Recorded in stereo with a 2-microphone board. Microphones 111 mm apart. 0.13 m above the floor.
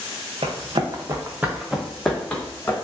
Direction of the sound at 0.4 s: 60° right (ahead or behind).